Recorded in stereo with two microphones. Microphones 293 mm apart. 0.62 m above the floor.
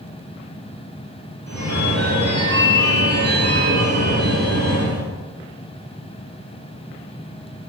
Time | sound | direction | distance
1.5 | a phone ringing | 55° right (ahead or behind) | 1.5 m